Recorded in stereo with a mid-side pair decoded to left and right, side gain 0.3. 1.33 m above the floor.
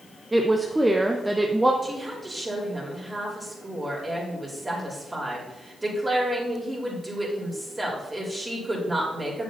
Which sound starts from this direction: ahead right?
A woman speaking, at 1.8 s.